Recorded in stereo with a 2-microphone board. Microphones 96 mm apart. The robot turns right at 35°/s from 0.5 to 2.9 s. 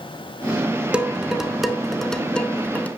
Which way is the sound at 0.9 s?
10° right (ahead or behind).